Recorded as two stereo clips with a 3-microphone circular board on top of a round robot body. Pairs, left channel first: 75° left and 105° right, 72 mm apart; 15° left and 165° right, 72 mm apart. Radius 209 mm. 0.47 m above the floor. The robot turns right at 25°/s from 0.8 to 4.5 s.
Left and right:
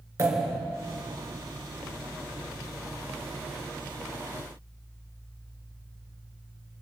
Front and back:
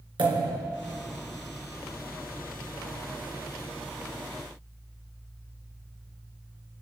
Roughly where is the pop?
Behind right.